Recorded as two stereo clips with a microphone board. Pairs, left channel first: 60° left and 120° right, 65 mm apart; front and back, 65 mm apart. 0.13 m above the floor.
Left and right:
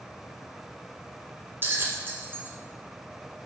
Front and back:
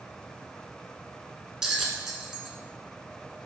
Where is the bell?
105° right, 0.5 m.